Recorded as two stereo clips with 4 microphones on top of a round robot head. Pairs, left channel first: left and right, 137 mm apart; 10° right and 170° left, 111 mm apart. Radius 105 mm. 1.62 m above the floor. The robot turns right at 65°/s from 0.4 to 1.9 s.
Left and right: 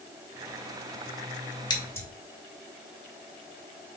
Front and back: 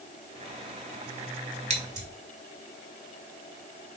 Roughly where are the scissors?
Behind left.